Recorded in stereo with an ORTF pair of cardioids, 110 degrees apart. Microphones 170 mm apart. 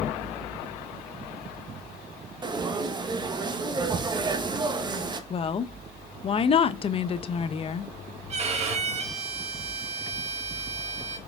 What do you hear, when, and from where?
2.4 s frying: 25° right, 1.0 m
5.3 s a woman speaking: 35° left, 0.7 m
8.3 s a violin: 40° right, 1.3 m